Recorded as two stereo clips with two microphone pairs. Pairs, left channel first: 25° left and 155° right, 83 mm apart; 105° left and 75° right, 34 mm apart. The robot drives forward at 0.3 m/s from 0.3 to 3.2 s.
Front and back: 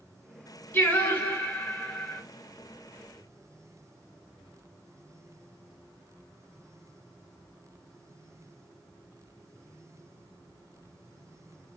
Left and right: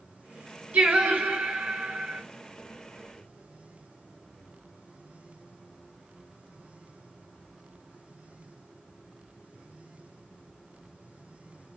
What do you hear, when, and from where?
0.7 s singing: 35° right, 3.5 m; by 2.2 s 40° right, 3 m